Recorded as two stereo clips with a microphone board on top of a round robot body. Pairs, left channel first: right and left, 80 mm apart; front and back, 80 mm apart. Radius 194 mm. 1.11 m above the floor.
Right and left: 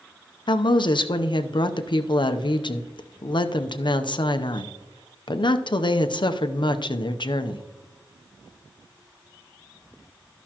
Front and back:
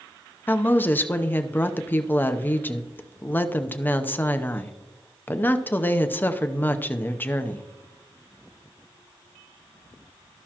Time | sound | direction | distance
0.5 | a woman speaking | 65° right | 0.8 m